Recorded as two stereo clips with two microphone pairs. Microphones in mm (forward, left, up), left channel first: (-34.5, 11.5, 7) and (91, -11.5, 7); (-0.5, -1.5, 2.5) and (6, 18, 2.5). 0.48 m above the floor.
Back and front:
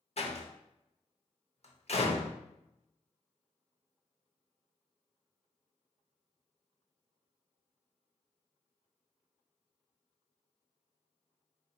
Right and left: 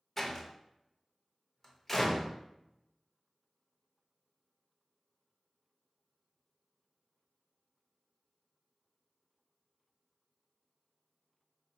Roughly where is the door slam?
Behind.